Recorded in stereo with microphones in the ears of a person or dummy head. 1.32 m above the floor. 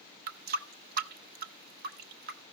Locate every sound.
0.3 s a running tap: 55° right (ahead or behind), 0.6 m